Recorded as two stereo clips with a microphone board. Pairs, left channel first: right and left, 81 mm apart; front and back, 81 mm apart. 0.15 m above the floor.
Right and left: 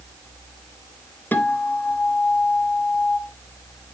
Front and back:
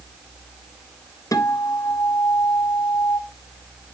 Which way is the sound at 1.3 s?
30° right.